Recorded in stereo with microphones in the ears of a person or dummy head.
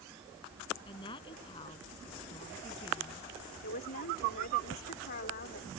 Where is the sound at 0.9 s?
30° left (ahead or behind).